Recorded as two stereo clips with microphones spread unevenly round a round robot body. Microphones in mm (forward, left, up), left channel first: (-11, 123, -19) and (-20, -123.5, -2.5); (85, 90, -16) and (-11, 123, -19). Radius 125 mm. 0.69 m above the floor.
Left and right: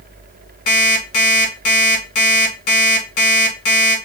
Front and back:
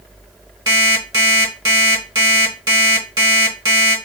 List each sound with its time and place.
0.7 s an alarm clock: 110° left, 1.6 m